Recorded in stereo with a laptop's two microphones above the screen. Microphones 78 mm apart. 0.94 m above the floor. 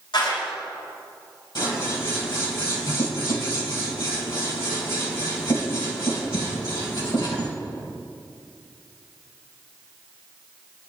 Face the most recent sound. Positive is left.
turn(degrees=70)  # may be behind; listen again after turning